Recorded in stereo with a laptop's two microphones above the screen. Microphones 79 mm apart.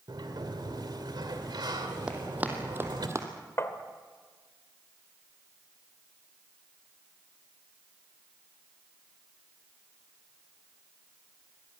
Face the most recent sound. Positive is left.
turn(degrees=35)  # may be behind; listen again after turning